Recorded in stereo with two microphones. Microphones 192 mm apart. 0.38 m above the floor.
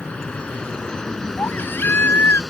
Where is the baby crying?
10° left (ahead or behind).